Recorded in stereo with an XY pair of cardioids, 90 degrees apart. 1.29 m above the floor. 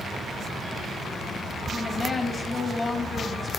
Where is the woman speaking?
35° left, 2 m.